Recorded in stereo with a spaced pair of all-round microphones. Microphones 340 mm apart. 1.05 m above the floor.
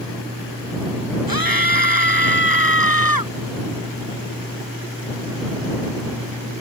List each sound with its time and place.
1.3 s a scream: 80° right; by 3.3 s 75° right (ahead or behind)